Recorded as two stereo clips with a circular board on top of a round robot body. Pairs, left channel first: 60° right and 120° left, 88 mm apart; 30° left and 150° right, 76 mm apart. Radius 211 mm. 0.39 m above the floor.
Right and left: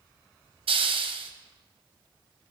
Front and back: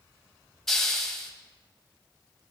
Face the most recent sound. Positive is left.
turn(degrees=115)